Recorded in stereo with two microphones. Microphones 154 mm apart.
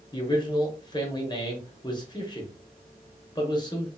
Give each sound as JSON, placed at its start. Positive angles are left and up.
{"t": 0.1, "sound": "a man speaking", "side_deg": 30, "distance_m": 0.8}